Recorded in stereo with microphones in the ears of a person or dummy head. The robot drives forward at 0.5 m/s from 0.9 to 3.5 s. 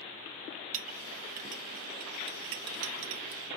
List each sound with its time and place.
0.7 s a clink: 40° right (ahead or behind), 1.3 m; by 3.4 s 60° right (ahead or behind), 1.0 m